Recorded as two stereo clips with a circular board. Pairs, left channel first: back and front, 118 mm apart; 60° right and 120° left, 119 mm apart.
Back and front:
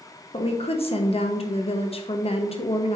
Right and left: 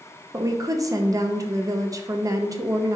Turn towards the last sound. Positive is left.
turn(degrees=175)